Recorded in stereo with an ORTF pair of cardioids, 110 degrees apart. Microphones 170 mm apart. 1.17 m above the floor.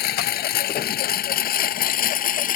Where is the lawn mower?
65° left; by 2.6 s 50° left.